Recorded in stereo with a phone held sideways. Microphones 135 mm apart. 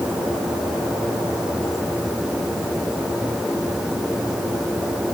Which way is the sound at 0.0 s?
5° right (ahead or behind).